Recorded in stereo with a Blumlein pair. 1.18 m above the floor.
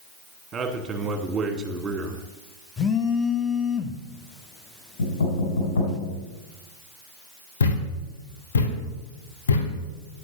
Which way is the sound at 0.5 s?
15° right.